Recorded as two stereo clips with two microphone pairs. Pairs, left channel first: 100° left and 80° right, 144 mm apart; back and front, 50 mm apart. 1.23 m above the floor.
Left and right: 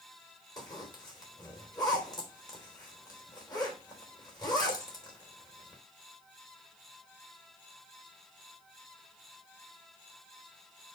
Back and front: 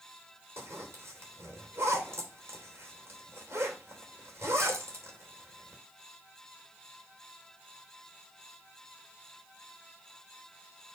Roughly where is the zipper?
Ahead left.